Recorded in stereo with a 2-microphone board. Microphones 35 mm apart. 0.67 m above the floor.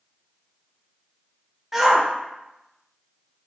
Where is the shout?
10° right (ahead or behind), 0.5 m.